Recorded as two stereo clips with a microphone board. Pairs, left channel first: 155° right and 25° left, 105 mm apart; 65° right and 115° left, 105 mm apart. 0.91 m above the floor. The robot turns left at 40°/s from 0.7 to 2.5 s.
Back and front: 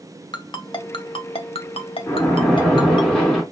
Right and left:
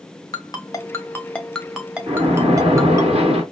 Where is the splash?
140° left, 2.5 m; by 3.4 s 120° left, 2.5 m.